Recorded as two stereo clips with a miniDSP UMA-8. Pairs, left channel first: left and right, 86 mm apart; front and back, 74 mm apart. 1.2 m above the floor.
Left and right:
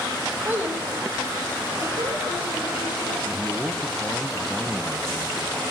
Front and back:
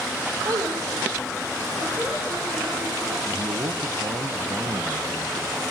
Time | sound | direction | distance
0.5 | a child speaking | 155° right | 3 m
3.3 | a man speaking | 165° right | 0.9 m